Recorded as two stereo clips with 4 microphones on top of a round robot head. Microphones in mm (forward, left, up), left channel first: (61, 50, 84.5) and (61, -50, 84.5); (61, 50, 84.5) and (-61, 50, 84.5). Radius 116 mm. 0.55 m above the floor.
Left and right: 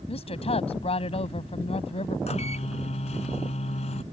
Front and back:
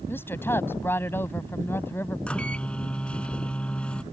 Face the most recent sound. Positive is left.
turn(degrees=80)